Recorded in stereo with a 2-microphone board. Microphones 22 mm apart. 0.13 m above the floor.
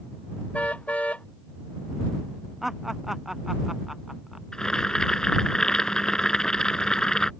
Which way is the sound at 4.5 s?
35° left (ahead or behind).